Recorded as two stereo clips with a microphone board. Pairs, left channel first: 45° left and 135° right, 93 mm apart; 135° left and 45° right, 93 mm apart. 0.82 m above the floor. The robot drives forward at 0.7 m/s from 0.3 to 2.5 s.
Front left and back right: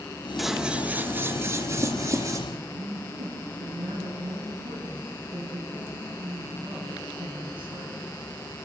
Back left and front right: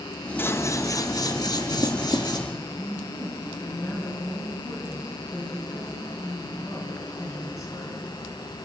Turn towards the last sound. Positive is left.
turn(degrees=-170)